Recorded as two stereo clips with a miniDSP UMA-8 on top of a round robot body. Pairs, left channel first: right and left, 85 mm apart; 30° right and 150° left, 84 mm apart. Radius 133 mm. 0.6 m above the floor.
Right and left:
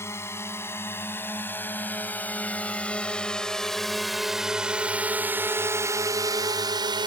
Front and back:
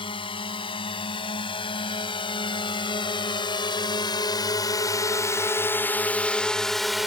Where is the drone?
30° right; by 7.1 s 65° left.